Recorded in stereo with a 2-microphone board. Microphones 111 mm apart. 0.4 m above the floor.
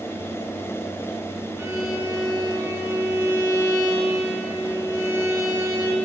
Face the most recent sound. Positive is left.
turn(degrees=-25)  # may be behind; listen again after turning